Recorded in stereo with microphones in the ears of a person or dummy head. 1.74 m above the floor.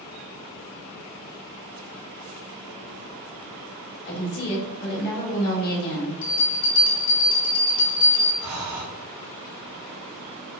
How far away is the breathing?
About 1.5 m.